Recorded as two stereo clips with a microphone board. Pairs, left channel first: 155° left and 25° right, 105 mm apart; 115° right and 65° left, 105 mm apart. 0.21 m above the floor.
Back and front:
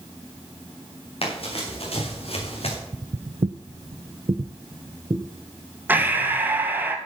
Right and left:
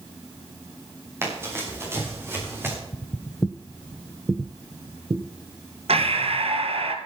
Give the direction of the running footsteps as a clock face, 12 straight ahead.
8 o'clock.